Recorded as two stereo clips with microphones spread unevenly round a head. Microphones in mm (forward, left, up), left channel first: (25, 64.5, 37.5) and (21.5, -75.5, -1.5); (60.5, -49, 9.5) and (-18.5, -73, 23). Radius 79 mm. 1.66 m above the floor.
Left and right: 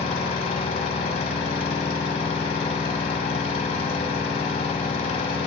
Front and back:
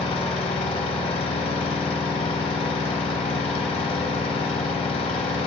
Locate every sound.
0.0 s an engine running: 45° left, 1.0 m